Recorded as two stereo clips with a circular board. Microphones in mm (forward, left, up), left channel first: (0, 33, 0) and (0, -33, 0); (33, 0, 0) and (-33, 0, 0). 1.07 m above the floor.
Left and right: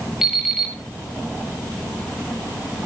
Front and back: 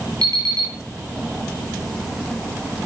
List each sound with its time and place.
0.2 s an alarm clock: 175° right, 9 m